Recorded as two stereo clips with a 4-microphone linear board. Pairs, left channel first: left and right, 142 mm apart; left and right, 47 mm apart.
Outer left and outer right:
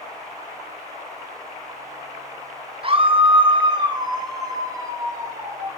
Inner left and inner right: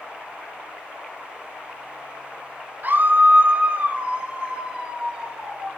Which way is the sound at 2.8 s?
40° right (ahead or behind).